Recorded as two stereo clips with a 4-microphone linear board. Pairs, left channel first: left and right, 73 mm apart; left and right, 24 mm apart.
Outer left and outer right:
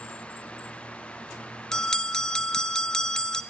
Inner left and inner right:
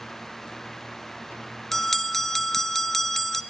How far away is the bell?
About 0.5 m.